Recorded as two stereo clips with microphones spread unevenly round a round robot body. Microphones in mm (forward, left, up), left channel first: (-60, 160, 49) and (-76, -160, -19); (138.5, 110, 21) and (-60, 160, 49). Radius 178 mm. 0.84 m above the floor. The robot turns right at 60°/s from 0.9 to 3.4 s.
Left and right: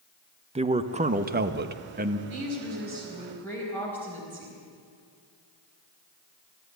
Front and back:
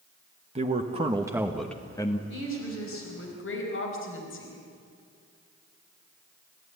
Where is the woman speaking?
65° right, 4.5 m; by 4.6 s straight ahead, 4.5 m.